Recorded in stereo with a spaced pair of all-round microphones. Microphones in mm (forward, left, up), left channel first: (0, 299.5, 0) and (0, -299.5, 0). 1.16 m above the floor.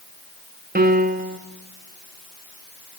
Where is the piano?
15° right (ahead or behind), 0.8 m.